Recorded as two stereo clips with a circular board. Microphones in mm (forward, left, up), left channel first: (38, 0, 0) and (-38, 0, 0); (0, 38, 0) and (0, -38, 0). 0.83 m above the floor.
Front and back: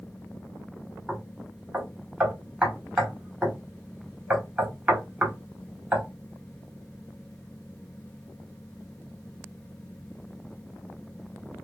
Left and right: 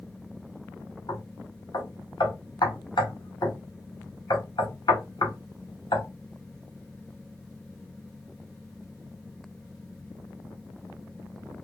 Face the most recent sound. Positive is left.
turn(degrees=105)